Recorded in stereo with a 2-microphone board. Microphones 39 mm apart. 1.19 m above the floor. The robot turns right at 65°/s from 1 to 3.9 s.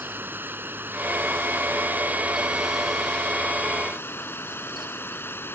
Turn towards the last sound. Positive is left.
turn(degrees=70)